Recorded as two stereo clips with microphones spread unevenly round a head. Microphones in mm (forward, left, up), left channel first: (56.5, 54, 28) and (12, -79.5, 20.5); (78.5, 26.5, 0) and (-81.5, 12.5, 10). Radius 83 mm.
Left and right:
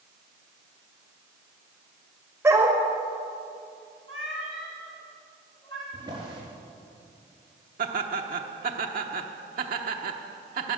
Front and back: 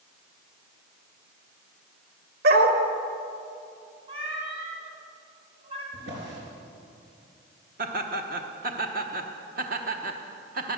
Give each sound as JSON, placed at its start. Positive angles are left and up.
{"t": 2.4, "sound": "a dog barking", "azimuth_deg": 175, "distance_m": 1.6}
{"t": 4.1, "sound": "a cat meowing", "azimuth_deg": 135, "distance_m": 3.0}
{"t": 5.9, "sound": "a drawer", "azimuth_deg": -175, "distance_m": 4.0}
{"t": 7.8, "sound": "laughter", "azimuth_deg": -135, "distance_m": 0.9}